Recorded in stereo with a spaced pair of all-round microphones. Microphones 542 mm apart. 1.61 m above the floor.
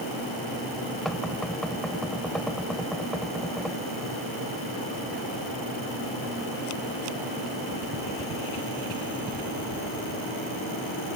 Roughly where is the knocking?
Centre.